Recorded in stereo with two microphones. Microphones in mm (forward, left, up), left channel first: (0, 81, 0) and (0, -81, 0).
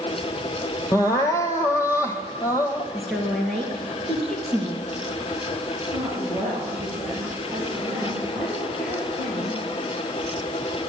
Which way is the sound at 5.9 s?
15° right (ahead or behind).